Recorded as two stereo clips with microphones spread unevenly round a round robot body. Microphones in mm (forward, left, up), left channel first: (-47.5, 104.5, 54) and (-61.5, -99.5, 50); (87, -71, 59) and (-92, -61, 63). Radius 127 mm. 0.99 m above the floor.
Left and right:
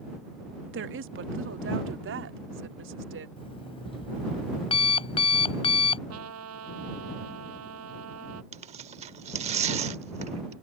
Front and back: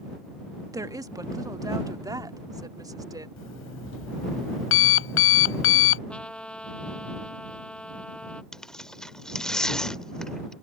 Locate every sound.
0.7 s a woman speaking: 110° right; by 3.3 s 115° right
3.4 s an alarm clock: 15° left
6.1 s a trumpet: 90° right
8.5 s tearing paper: 90° right